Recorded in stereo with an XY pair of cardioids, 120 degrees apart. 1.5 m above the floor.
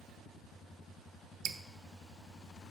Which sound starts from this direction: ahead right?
Dripping, at 1.4 s.